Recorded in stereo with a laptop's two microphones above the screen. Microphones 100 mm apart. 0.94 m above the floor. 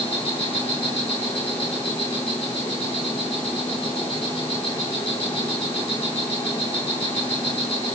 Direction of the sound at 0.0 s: 75° left (ahead or behind).